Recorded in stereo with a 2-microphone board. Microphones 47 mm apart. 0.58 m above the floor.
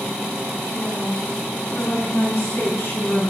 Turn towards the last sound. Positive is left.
turn(degrees=55)  # may be behind; listen again after turning